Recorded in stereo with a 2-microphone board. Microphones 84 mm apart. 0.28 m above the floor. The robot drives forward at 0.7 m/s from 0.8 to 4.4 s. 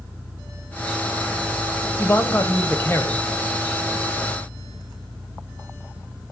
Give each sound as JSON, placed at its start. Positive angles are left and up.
{"t": 2.0, "sound": "a man speaking", "side_deg": 35, "distance_m": 1.4}